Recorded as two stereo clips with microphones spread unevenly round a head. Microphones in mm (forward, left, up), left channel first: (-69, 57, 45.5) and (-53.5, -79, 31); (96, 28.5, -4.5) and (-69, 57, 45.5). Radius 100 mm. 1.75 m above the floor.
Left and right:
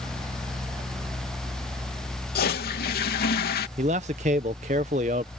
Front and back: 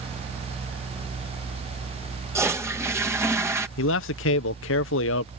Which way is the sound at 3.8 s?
25° right.